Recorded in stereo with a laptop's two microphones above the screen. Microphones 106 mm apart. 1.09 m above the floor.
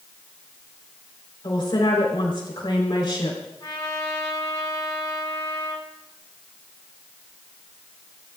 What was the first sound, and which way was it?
A woman speaking, 50° left (ahead or behind).